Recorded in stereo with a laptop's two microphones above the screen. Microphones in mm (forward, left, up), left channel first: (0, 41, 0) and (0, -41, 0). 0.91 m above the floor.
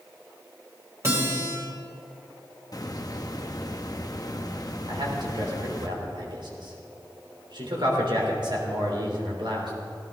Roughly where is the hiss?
Left.